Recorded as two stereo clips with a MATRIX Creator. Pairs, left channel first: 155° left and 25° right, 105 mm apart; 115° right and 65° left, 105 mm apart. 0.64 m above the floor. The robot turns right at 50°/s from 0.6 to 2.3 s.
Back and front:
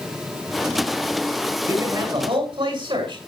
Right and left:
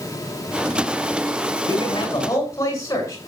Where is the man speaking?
85° right, 7 m; by 3.2 s 55° right, 7 m.